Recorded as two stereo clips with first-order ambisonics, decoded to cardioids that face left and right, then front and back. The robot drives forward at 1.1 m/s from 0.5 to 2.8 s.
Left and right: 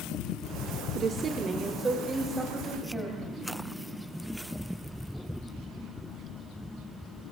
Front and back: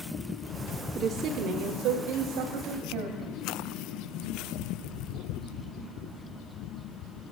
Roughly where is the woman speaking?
Behind right.